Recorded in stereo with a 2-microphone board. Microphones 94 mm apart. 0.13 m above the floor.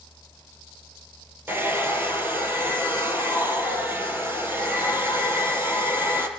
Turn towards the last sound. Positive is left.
turn(degrees=-25)  # may be behind; listen again after turning